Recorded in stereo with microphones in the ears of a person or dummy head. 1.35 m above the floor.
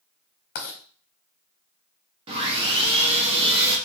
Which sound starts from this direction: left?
Writing, at 0.6 s.